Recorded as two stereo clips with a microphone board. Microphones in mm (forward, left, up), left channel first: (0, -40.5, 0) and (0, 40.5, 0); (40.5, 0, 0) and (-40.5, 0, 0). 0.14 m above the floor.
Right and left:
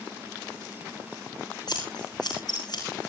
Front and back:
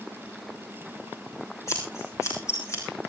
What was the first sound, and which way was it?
Scissors, 55° right.